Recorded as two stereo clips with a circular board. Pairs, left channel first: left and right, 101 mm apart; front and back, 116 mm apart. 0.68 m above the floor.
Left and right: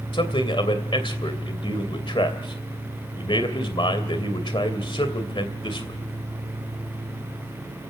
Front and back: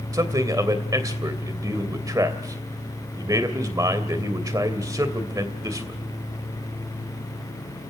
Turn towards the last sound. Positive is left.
turn(degrees=120)